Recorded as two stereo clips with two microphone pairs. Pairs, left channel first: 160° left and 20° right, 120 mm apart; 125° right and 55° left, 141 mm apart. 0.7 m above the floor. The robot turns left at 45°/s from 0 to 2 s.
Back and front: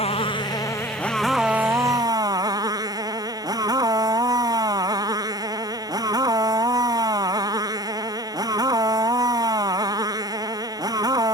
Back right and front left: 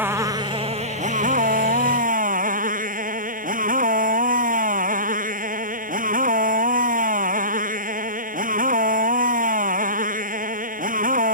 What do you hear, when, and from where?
0.0 s a motorcycle: 130° left; by 11.3 s 40° left